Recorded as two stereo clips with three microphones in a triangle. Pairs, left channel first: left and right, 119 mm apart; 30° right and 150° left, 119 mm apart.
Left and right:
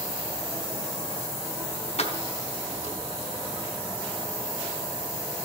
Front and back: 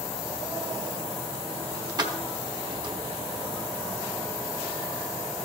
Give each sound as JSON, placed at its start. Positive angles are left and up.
{"t": 2.0, "sound": "keys jangling", "azimuth_deg": 100, "distance_m": 1.0}